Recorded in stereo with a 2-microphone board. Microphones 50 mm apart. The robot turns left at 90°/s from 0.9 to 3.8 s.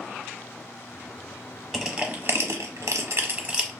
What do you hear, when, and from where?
1.7 s crushing: centre (ahead or behind), 0.8 m; by 3.7 s 5° right (ahead or behind), 0.8 m